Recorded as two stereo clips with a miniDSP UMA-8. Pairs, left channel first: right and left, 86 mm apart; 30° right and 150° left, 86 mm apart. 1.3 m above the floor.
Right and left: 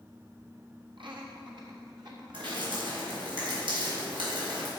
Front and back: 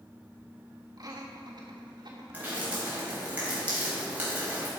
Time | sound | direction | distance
1.0 | laughter | 110° left | 1.6 m
2.3 | dripping | 80° left | 4 m